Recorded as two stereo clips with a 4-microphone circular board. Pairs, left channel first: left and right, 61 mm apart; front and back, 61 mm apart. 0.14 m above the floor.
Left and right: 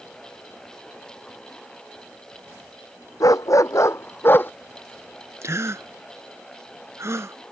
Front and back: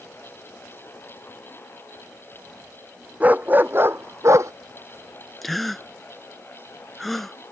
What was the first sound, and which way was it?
A dog barking, 115° left.